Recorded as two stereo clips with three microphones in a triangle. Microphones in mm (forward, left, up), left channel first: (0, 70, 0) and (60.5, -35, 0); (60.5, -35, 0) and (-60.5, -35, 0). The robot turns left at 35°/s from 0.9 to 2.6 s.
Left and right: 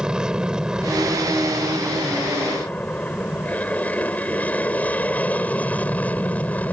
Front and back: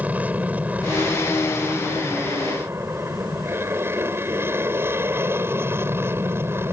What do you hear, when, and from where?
0.0 s an aircraft: 130° right; by 6.7 s 170° left